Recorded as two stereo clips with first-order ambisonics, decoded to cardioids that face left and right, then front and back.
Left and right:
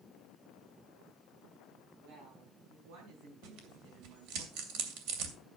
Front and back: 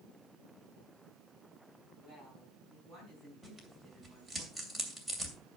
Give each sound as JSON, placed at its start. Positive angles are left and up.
{"t": 2.0, "sound": "a woman speaking", "azimuth_deg": -75, "distance_m": 5.0}
{"t": 3.4, "sound": "tearing paper", "azimuth_deg": -90, "distance_m": 2.5}